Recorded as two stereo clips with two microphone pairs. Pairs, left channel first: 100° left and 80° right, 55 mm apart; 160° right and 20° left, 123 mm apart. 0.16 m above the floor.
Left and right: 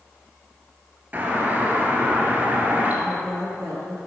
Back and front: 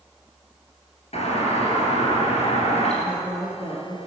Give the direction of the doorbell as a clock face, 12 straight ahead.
5 o'clock.